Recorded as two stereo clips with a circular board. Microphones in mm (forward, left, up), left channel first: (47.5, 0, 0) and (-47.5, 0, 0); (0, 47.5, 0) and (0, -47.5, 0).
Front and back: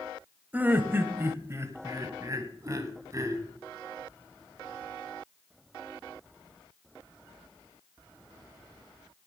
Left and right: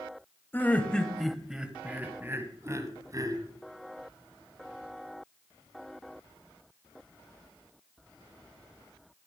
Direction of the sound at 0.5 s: 130° left.